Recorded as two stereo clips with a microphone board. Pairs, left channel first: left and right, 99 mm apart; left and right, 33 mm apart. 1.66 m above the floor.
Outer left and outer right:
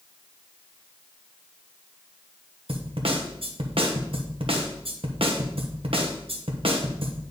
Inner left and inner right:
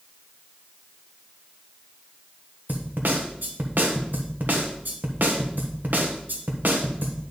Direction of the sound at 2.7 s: 65° right (ahead or behind).